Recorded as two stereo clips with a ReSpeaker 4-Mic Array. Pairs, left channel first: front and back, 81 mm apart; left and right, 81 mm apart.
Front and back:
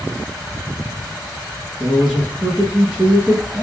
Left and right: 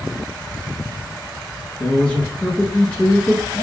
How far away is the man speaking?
About 1.1 m.